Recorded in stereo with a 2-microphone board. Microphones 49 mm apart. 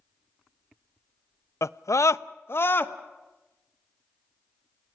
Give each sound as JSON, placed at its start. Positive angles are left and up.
{"t": 1.6, "sound": "a scream", "side_deg": 70, "distance_m": 0.6}